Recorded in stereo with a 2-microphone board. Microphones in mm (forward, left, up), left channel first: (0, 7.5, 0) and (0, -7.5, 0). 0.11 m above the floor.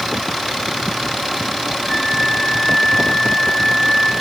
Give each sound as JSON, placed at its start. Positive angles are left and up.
{"t": 1.9, "sound": "a flute", "side_deg": 20, "distance_m": 4.5}